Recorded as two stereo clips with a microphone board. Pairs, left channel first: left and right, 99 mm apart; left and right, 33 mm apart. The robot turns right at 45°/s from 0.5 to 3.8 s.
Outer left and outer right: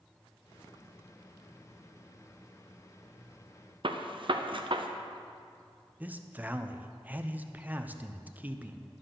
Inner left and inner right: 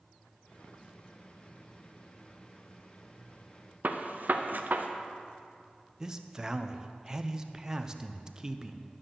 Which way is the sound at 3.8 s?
60° right (ahead or behind).